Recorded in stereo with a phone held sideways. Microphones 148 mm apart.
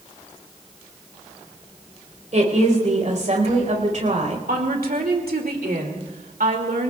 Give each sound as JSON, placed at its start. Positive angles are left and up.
{"t": 2.3, "sound": "a woman speaking", "side_deg": -55, "distance_m": 4.5}
{"t": 4.5, "sound": "a woman speaking", "side_deg": -85, "distance_m": 2.5}